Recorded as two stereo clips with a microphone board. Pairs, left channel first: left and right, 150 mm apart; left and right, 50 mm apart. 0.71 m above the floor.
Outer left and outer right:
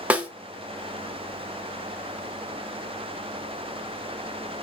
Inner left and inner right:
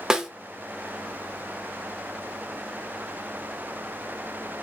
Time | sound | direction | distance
0.1 | a snare drum | 10° right (ahead or behind) | 0.7 m